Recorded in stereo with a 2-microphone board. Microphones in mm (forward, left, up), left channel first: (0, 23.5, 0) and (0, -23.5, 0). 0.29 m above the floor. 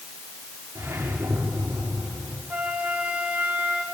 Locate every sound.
0.8 s a whoosh: 70° right (ahead or behind), 6 m
2.5 s a flute: 30° right (ahead or behind), 3.5 m